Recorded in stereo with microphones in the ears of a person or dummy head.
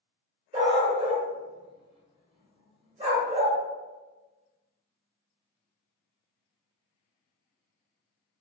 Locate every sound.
0.5 s a dog barking: 30° right (ahead or behind), 1.4 m